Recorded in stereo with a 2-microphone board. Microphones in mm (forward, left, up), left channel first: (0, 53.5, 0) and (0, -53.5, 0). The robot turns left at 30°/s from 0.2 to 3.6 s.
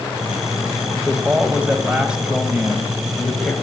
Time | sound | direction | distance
0.9 | a man speaking | 20° right (ahead or behind) | 1.2 m